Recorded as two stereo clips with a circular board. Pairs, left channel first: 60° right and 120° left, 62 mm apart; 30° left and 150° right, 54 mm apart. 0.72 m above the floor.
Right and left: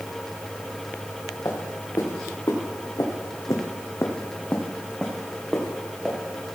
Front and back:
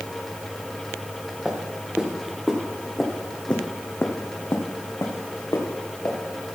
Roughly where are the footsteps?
Right.